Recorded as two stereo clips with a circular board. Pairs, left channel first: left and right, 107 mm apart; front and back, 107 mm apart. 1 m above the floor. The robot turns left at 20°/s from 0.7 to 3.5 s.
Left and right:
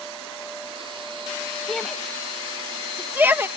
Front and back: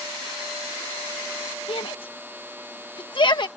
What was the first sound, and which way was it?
A shout, 10° left.